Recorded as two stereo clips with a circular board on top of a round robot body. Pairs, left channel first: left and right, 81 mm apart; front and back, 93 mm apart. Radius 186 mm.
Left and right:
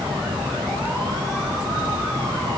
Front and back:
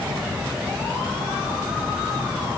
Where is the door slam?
No door slam in this recording.